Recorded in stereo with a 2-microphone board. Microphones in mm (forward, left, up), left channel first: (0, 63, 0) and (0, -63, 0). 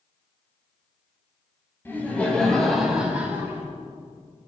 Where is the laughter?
20° left (ahead or behind), 2.0 m; by 3.6 s 20° right (ahead or behind), 2 m.